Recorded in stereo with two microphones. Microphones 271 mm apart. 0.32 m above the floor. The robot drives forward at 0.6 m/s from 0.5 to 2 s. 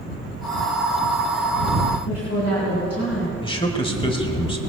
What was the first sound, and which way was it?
A woman speaking, 60° left (ahead or behind).